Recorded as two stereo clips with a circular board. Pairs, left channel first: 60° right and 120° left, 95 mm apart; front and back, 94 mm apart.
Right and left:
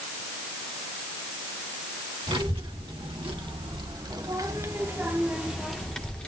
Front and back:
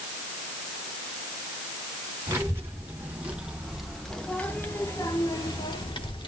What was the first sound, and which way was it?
A child speaking, 120° left.